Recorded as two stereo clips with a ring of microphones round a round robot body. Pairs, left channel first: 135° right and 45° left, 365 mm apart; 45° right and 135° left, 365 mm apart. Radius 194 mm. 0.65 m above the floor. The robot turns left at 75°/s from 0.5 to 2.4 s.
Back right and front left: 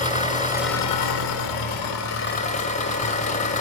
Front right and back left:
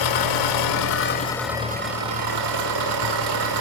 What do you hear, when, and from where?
0.0 s an engine running: 65° right, 1.6 m; by 3.6 s 155° left, 1.6 m